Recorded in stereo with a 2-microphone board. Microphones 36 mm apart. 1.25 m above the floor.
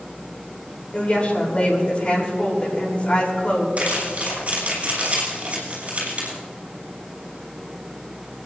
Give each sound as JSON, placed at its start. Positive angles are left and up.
{"t": 0.9, "sound": "a woman speaking", "side_deg": 40, "distance_m": 3.5}
{"t": 3.8, "sound": "crumpling", "side_deg": -45, "distance_m": 5.5}